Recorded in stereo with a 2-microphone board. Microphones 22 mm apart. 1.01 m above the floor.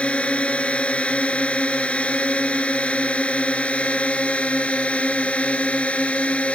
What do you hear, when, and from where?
0.0 s a drone: 70° left (ahead or behind); by 6.5 s 80° left